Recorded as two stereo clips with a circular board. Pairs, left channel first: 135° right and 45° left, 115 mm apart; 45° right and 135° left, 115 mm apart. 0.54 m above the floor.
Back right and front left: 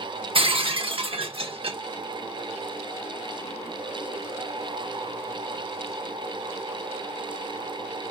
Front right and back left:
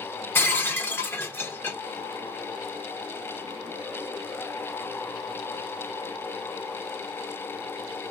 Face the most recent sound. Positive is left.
turn(degrees=25)